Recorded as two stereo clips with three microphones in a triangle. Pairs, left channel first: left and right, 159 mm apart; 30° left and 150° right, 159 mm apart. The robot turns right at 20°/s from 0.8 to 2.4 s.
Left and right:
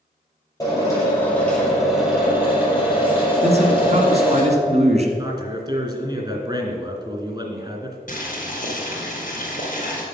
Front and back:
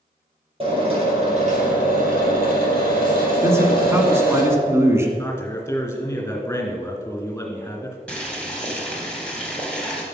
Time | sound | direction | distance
0.6 | a drill | 155° left | 4 m
3.4 | a man speaking | 85° right | 1.6 m
5.2 | a man speaking | 45° right | 2.5 m
8.1 | boiling | 115° left | 2.5 m